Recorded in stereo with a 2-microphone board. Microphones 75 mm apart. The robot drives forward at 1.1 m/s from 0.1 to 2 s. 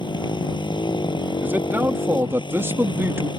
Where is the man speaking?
25° right (ahead or behind); by 3.3 s 30° right (ahead or behind).